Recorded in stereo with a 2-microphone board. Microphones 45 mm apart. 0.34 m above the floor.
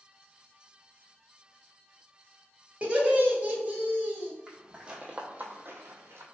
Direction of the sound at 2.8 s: 30° right (ahead or behind).